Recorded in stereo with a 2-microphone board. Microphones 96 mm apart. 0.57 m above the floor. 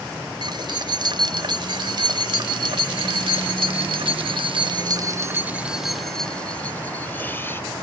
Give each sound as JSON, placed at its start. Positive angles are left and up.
{"t": 0.4, "sound": "keys jangling", "side_deg": -50}